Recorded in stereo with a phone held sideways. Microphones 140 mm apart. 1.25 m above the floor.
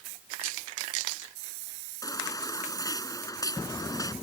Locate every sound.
2.0 s a baby crying: 25° left (ahead or behind)